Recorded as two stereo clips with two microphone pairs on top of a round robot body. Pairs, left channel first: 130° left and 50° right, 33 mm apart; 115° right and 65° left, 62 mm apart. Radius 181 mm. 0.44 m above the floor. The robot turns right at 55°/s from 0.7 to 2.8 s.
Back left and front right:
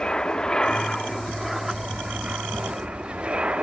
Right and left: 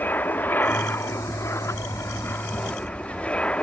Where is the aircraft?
165° right; by 3.6 s 50° right.